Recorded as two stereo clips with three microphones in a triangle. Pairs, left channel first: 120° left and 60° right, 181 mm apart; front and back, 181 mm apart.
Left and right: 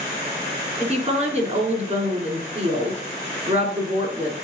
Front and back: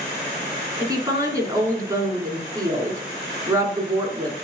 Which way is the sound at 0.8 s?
110° right.